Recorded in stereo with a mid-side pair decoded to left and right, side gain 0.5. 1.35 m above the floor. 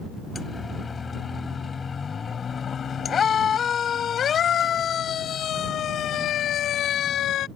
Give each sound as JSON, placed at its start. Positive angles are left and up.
{"t": 0.3, "sound": "a siren", "azimuth_deg": 30}